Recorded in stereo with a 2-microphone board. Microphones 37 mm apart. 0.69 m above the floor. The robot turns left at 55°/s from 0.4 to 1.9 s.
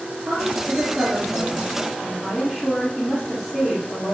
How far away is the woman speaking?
About 1.6 m.